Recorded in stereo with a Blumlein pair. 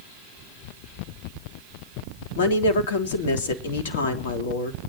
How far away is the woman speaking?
About 3 m.